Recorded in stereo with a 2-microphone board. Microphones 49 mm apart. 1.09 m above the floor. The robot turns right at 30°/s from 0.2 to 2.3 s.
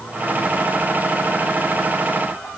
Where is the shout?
I don't hear a shout.